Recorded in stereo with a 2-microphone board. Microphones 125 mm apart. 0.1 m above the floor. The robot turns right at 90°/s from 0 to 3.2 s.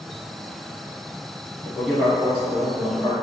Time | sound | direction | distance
1.6 | a man speaking | 10° left (ahead or behind) | 1.4 m